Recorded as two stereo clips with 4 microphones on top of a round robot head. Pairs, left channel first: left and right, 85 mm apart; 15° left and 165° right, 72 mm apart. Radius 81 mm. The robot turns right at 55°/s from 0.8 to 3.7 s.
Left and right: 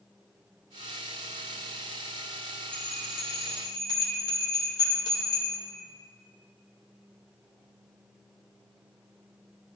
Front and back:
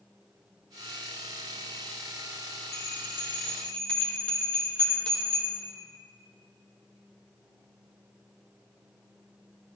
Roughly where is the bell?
Ahead left.